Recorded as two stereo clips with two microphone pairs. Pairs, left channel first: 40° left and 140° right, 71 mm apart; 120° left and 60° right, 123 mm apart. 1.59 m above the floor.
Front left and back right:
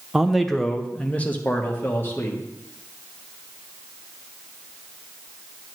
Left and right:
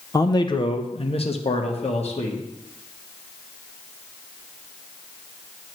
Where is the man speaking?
140° left, 0.6 m; by 2.4 s 95° left, 1.4 m.